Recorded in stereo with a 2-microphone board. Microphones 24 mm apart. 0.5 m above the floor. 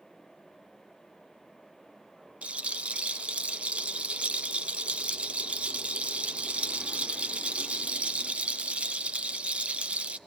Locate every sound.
2.4 s a rattle: 60° right (ahead or behind), 0.6 m